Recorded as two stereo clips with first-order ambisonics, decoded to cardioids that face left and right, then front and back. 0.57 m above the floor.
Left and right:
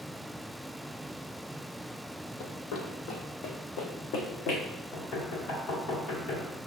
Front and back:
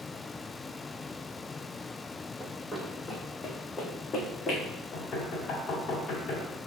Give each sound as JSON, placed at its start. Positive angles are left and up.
{"t": 2.4, "sound": "running footsteps", "azimuth_deg": 90, "distance_m": 1.1}
{"t": 4.9, "sound": "knocking", "azimuth_deg": 55, "distance_m": 1.8}